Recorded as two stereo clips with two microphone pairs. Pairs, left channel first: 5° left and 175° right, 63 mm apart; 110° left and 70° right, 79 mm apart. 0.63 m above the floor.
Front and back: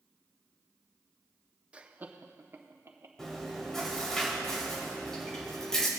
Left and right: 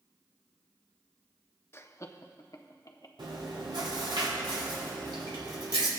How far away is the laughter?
About 0.6 m.